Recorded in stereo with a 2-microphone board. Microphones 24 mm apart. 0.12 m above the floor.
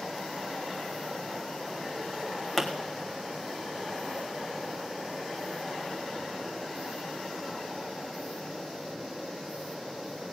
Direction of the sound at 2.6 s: 20° left (ahead or behind).